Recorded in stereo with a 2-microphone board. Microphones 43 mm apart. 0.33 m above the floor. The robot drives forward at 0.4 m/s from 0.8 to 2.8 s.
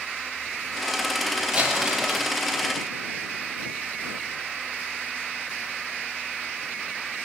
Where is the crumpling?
20° right (ahead or behind), 7.5 m; by 2.3 s 15° right (ahead or behind), 8 m.